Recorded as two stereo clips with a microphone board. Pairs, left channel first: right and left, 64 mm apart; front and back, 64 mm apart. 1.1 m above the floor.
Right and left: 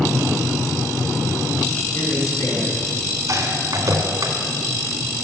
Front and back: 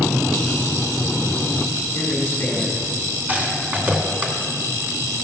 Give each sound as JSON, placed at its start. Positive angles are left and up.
{"t": 1.9, "sound": "a man speaking", "azimuth_deg": -60, "distance_m": 5.0}
{"t": 3.3, "sound": "a rattle", "azimuth_deg": 120, "distance_m": 2.0}